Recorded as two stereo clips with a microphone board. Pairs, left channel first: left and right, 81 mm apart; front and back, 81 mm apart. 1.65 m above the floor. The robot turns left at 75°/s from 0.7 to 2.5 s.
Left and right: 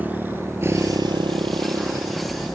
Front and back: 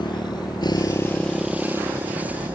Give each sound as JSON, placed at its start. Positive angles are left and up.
{"t": 0.0, "sound": "a motorcycle", "azimuth_deg": -20}